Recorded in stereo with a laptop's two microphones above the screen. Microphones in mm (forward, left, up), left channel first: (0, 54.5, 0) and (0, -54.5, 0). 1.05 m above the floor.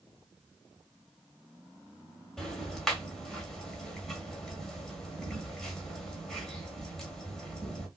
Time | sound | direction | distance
2.4 | ticking | 5° left (ahead or behind) | 1.4 m